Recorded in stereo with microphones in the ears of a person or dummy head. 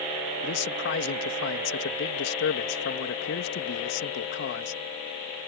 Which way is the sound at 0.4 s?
60° left (ahead or behind).